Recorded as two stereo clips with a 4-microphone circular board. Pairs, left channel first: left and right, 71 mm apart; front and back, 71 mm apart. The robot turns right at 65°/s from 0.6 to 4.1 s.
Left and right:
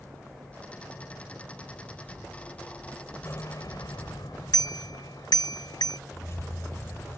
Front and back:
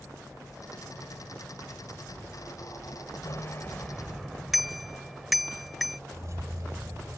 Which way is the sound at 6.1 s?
135° left.